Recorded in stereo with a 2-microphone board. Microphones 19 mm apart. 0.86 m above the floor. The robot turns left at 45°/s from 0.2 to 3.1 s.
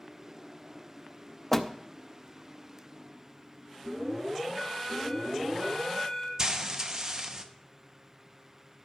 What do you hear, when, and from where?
1.5 s a door slam: 15° left (ahead or behind), 0.6 m; by 1.7 s 25° left (ahead or behind), 0.6 m
3.8 s an alarm: 50° right (ahead or behind), 5.5 m
6.4 s frying: 35° right (ahead or behind), 0.8 m